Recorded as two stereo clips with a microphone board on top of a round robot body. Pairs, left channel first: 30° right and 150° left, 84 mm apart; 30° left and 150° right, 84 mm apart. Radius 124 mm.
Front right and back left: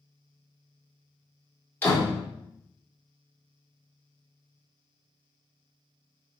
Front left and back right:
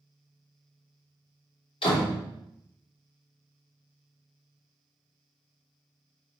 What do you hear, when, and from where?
1.8 s a door slam: 35° left, 3.5 m